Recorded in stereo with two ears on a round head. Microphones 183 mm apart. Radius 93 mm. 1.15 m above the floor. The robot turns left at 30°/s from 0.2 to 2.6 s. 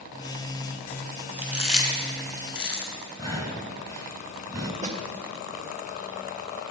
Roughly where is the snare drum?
Right.